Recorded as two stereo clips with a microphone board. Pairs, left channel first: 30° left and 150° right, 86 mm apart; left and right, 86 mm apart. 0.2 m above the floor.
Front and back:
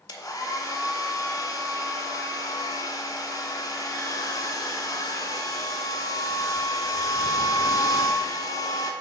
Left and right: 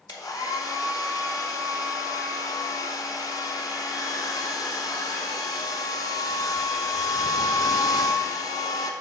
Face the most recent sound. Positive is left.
turn(degrees=60)